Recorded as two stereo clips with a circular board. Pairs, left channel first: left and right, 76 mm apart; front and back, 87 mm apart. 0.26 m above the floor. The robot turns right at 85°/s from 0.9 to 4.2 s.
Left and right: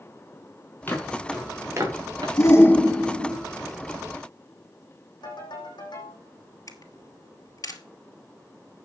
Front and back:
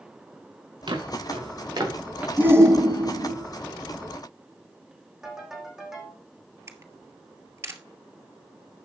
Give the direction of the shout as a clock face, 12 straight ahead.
8 o'clock.